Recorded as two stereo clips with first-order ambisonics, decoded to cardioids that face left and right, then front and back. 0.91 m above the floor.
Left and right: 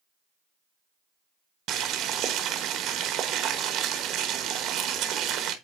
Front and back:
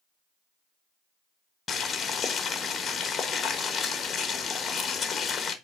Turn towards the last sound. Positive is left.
turn(degrees=-65)